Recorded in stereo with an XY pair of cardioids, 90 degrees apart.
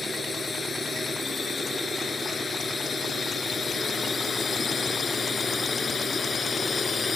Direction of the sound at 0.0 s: 35° left.